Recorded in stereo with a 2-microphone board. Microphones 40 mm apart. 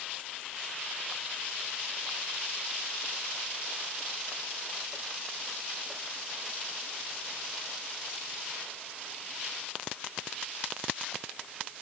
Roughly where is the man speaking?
No man speaking in this recording.